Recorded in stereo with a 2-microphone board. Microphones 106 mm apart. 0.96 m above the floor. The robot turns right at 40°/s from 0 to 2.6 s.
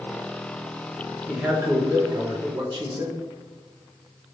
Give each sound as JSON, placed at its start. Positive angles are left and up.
{"t": 1.3, "sound": "a man speaking", "azimuth_deg": -165, "distance_m": 0.9}